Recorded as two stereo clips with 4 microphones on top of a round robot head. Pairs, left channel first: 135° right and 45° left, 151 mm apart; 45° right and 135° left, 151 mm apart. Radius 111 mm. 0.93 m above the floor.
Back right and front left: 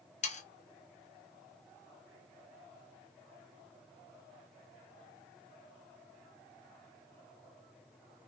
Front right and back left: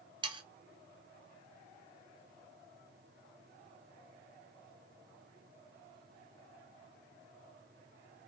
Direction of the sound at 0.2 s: 170° right.